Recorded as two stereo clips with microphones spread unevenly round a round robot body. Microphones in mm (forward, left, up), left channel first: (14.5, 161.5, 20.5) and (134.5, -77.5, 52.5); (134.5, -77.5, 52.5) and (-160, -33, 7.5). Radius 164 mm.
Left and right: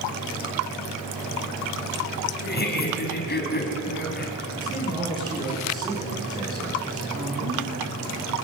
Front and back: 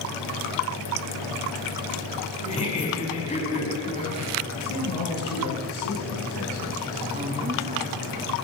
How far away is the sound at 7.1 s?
About 8.5 m.